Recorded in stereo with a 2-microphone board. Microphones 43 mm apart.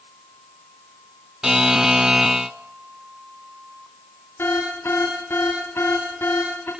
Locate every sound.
1.4 s a buzzer: 15° right (ahead or behind), 0.5 m
4.4 s an alarm: 60° left (ahead or behind), 9.5 m